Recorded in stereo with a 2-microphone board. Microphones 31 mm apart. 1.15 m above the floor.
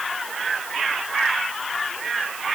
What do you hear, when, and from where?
Only background noise.